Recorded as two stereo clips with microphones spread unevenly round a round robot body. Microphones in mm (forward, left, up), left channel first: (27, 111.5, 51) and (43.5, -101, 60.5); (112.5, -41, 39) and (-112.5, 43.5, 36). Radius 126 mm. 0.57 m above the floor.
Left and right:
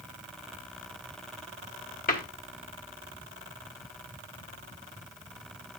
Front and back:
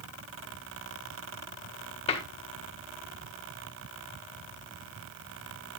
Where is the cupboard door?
45° left, 1.6 m.